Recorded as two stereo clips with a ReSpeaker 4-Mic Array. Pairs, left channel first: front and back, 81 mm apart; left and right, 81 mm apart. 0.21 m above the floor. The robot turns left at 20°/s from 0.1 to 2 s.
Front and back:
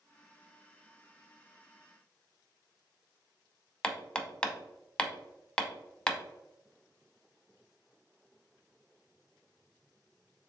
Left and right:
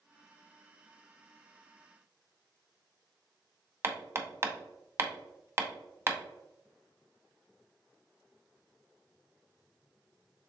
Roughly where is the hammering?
Ahead right.